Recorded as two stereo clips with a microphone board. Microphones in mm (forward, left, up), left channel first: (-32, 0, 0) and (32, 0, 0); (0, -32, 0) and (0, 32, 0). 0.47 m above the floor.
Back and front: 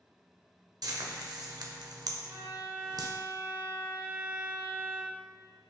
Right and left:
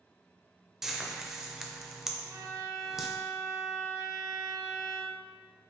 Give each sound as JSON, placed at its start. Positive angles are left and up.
{"t": 0.8, "sound": "frying", "azimuth_deg": 5, "distance_m": 0.5}
{"t": 2.2, "sound": "a violin", "azimuth_deg": 55, "distance_m": 0.7}